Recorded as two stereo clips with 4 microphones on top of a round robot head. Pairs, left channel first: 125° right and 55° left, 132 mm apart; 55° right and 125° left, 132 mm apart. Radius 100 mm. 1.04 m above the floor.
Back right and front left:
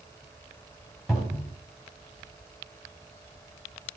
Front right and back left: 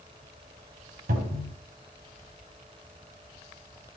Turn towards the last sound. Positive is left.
turn(degrees=145)